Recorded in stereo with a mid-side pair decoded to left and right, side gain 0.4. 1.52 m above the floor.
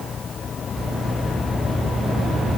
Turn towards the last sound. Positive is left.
No sound to turn to.